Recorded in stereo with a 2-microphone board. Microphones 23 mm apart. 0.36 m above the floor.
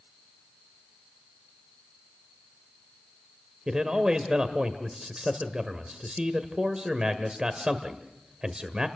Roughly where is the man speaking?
Right.